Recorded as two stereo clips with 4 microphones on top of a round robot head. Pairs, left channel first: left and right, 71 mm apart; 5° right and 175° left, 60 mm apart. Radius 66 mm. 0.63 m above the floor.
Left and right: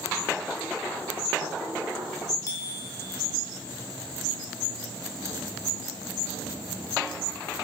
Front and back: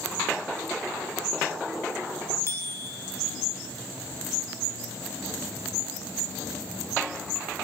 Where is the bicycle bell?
40° left, 3 m.